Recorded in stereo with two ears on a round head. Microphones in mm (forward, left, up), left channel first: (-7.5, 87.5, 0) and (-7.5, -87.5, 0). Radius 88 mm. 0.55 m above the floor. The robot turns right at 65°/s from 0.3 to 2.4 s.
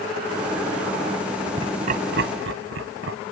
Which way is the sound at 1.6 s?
25° right (ahead or behind).